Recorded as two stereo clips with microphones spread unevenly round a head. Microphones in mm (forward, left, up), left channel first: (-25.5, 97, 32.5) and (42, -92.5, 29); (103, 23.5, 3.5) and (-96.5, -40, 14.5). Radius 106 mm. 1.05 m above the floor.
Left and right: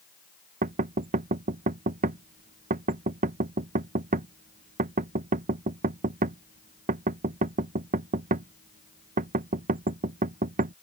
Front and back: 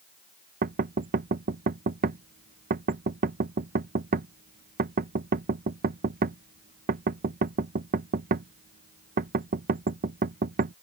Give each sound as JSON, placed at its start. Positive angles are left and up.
{"t": 0.6, "sound": "knocking", "azimuth_deg": -115}